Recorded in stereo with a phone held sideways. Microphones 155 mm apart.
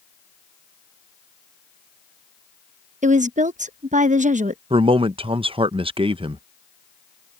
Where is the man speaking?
35° right (ahead or behind).